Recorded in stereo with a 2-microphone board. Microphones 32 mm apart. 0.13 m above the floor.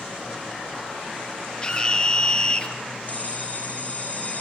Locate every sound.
1.6 s a scream: 25° left (ahead or behind), 3.5 m
3.1 s a bell: 45° left (ahead or behind), 4 m